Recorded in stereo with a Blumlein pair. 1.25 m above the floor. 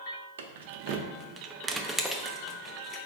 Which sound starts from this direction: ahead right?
Keys jangling, at 0.4 s.